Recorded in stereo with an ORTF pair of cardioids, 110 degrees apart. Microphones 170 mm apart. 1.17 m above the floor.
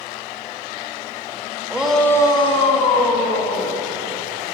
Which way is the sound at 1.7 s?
10° right.